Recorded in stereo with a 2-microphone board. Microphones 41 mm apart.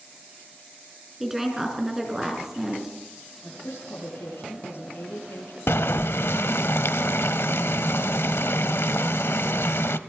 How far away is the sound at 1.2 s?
About 5.5 m.